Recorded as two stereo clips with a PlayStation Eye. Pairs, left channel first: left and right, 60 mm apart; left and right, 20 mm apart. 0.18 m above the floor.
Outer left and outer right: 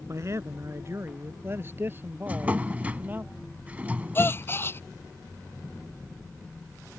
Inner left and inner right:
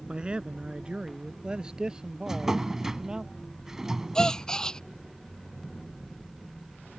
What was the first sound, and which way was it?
A man speaking, 55° right (ahead or behind).